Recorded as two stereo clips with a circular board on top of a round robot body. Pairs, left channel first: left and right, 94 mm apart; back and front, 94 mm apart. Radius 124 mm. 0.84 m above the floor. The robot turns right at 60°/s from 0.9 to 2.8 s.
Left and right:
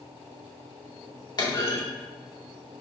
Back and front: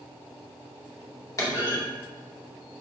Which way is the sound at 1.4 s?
130° left.